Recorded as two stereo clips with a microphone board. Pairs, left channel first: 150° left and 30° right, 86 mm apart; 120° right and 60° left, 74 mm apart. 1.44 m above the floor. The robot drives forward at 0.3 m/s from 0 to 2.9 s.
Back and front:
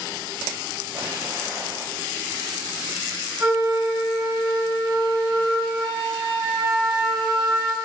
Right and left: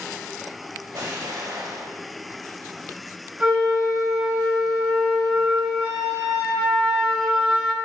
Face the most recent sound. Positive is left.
turn(degrees=35)